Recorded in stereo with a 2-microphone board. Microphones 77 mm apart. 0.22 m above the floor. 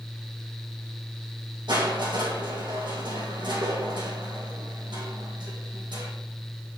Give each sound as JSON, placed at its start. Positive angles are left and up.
{"t": 1.7, "sound": "crushing", "side_deg": -80, "distance_m": 4.0}